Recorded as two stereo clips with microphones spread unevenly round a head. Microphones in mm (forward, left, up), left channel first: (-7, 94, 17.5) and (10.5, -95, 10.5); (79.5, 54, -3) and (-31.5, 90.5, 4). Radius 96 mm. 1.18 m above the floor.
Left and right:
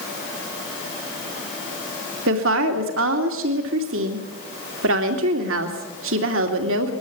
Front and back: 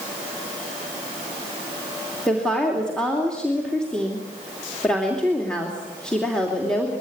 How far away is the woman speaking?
About 2.5 m.